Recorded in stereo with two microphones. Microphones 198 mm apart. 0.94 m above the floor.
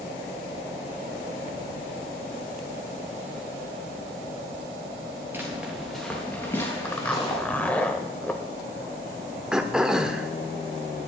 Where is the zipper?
5° left (ahead or behind), 1.0 m.